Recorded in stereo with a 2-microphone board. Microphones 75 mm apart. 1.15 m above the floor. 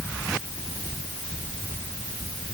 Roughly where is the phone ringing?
No phone ringing in this recording.